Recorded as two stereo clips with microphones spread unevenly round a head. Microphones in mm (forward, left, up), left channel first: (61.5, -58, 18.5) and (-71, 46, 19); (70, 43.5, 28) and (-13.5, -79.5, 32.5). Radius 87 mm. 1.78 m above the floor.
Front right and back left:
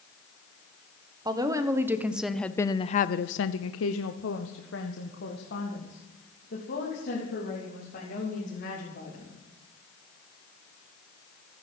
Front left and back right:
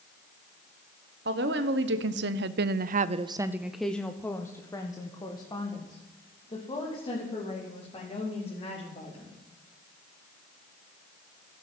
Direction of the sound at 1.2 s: 150° right.